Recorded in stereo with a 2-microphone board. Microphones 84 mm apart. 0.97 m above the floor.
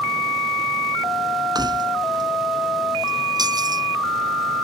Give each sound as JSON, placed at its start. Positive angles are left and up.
{"t": 1.6, "sound": "keys jangling", "side_deg": -50}